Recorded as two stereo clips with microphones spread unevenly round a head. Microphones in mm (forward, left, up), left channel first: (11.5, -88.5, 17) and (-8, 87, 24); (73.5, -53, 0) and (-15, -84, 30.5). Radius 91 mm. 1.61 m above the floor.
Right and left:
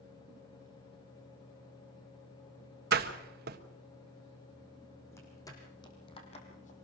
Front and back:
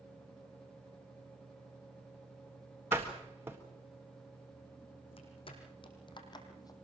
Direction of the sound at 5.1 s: 5° right.